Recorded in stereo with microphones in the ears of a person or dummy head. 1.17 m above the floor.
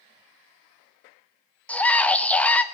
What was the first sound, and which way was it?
A scream, 5° left (ahead or behind).